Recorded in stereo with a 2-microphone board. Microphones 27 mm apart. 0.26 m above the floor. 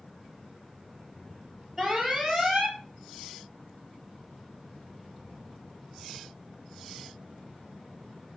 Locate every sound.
1.8 s an alarm: 5° right (ahead or behind), 3.5 m